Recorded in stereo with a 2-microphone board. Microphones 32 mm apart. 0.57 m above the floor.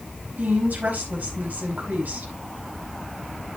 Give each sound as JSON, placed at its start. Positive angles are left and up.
{"t": 0.4, "sound": "a woman speaking", "side_deg": -65, "distance_m": 5.0}